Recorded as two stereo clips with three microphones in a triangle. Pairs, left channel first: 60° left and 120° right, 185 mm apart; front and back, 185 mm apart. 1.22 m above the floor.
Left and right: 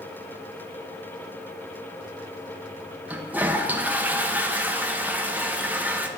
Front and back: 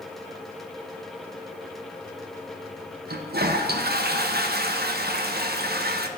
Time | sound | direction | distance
3.1 | a toilet flushing | 160° left | 0.5 m